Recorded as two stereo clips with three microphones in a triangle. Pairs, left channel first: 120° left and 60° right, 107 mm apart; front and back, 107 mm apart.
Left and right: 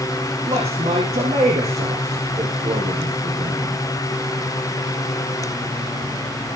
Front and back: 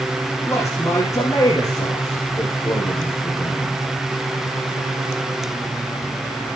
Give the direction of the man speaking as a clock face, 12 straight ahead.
2 o'clock.